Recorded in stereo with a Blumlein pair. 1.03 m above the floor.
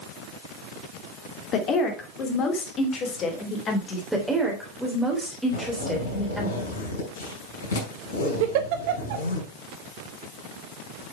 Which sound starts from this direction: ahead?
A woman speaking, at 4.1 s.